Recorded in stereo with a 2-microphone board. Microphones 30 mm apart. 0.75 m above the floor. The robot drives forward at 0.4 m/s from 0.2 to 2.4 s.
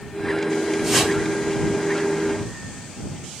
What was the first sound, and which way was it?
A whoosh, 10° right (ahead or behind).